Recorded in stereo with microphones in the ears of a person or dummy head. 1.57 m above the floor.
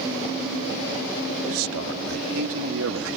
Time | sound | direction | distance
1.4 | a man speaking | 85° right | ?